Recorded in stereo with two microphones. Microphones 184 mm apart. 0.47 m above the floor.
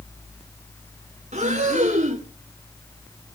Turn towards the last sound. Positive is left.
turn(degrees=-40)  # may be behind; listen again after turning